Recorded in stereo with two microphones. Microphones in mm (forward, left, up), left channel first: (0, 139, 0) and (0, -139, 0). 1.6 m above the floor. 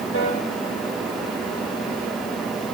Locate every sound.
0.1 s a piano: 50° left (ahead or behind), 6 m